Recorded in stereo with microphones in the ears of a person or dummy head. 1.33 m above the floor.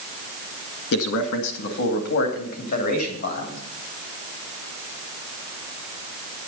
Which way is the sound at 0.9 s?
65° left (ahead or behind).